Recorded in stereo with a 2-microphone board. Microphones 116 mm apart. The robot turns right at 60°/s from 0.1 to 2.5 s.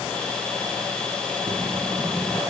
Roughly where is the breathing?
Ahead right.